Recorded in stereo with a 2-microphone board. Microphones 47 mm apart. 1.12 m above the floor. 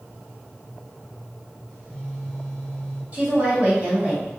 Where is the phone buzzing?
15° left (ahead or behind), 1.8 m.